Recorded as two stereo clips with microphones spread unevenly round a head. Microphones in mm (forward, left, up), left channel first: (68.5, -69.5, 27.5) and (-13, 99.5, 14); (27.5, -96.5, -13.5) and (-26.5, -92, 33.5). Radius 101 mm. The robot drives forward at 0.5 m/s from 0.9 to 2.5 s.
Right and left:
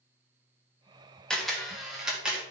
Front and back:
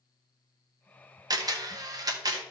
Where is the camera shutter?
155° right, 1.6 m; by 2.4 s 160° right, 2 m.